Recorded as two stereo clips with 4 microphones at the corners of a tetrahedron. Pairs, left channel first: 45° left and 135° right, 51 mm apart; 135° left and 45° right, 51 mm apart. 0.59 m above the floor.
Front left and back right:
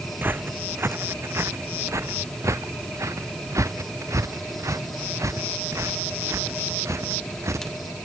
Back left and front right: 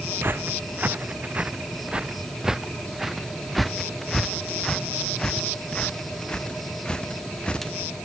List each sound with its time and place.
0.2 s footsteps: 90° right; by 7.8 s 155° right